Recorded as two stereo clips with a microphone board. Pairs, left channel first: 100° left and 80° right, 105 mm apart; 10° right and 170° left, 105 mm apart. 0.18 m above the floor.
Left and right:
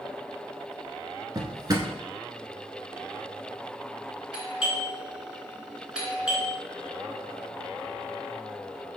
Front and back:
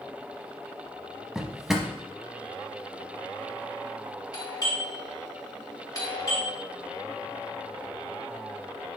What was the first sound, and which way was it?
A drawer, 105° right.